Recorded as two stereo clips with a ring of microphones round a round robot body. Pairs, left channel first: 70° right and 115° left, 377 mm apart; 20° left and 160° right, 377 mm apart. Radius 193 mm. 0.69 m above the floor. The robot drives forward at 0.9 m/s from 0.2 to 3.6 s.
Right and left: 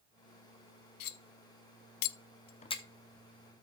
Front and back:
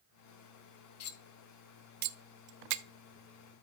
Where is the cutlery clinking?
30° right, 1.0 m; by 2.8 s 150° right, 0.9 m.